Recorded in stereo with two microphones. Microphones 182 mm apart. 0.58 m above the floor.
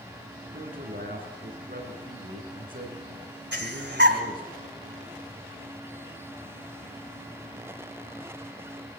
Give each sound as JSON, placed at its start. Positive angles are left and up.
{"t": 0.5, "sound": "a man speaking", "side_deg": -50, "distance_m": 7.5}
{"t": 3.5, "sound": "breathing", "side_deg": -70, "distance_m": 2.0}